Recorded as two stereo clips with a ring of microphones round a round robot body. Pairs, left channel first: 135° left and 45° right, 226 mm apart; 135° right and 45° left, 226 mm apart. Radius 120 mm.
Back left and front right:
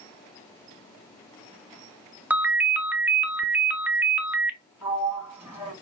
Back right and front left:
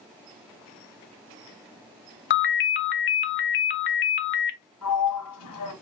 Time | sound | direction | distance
2.3 | a ringtone | 125° right | 0.6 m
4.8 | a sliding door | 125° right | 1.7 m